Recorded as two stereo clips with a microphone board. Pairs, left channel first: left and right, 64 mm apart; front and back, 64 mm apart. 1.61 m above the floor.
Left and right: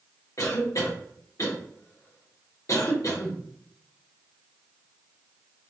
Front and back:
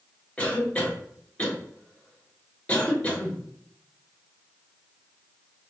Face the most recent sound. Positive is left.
turn(degrees=70)